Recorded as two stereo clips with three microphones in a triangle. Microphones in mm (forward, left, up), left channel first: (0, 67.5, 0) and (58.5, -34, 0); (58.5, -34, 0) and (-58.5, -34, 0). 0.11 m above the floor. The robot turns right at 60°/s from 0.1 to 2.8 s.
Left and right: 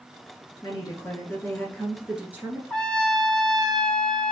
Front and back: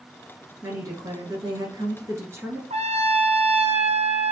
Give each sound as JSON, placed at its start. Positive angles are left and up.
{"t": 0.6, "sound": "a woman speaking", "azimuth_deg": 130, "distance_m": 1.3}
{"t": 2.7, "sound": "a trumpet", "azimuth_deg": -160, "distance_m": 0.6}